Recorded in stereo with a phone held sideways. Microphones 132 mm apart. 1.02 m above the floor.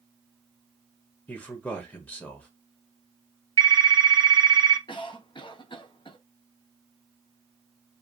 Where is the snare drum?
I don't hear a snare drum.